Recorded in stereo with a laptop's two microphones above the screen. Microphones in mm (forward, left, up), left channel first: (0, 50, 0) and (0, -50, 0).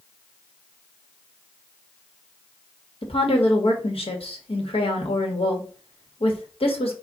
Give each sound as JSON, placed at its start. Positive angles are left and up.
{"t": 3.0, "sound": "a woman speaking", "side_deg": 70, "distance_m": 1.4}